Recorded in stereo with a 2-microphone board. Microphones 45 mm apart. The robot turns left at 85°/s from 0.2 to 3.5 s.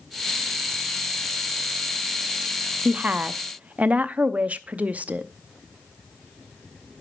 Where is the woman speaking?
50° right, 0.6 m; by 5.3 s 105° right, 0.6 m.